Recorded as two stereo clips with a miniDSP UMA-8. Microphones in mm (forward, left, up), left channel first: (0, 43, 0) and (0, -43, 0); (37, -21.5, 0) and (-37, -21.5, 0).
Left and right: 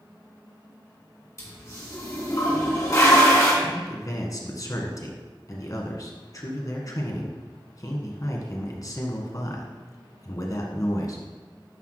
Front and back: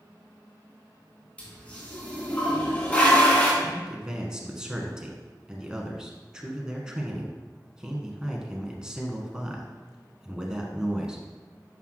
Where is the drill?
I don't hear a drill.